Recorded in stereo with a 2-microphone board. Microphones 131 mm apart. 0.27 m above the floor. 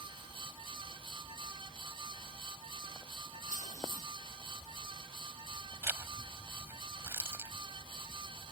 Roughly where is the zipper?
Centre.